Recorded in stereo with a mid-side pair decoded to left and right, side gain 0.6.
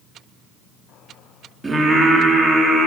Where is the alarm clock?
No alarm clock in this recording.